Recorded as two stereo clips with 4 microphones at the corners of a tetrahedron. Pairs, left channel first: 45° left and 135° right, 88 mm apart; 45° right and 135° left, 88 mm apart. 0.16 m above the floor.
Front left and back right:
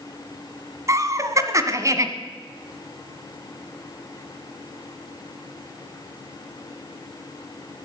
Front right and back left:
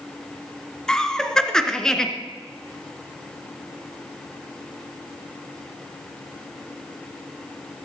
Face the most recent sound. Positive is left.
turn(degrees=-120)